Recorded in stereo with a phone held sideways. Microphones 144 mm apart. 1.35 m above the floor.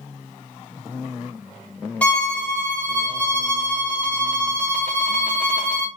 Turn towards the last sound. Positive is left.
turn(degrees=10)  # may be behind; listen again after turning